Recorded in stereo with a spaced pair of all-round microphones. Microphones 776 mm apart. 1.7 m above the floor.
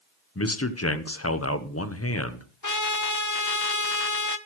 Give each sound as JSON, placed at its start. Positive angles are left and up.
{"t": 0.3, "sound": "a man speaking", "side_deg": 20, "distance_m": 0.9}
{"t": 2.6, "sound": "a trumpet", "side_deg": 25, "distance_m": 0.9}